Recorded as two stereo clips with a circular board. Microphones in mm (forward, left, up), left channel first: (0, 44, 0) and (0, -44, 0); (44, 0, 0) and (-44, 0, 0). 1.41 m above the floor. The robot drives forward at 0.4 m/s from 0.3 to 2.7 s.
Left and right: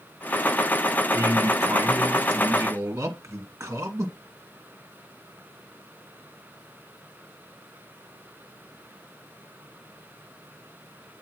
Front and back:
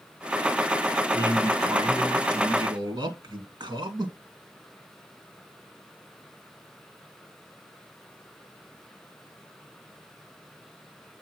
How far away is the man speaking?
About 1.4 m.